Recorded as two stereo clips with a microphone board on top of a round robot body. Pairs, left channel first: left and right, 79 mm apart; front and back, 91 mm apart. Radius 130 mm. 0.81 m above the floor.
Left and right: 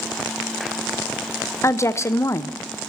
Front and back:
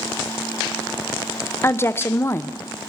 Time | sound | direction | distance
1.6 | a woman speaking | 50° left | 0.7 m